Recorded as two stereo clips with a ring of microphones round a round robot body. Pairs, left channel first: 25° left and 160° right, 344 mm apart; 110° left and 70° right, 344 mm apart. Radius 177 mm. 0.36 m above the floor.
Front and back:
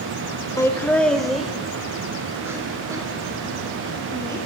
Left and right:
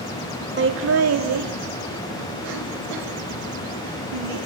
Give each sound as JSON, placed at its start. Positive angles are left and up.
{"t": 0.6, "sound": "laughter", "azimuth_deg": -50, "distance_m": 0.9}